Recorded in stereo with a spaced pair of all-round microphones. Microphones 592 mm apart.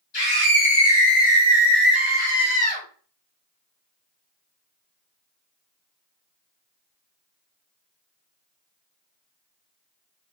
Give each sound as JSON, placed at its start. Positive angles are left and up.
{"t": 0.1, "sound": "a scream", "side_deg": 45, "distance_m": 1.2}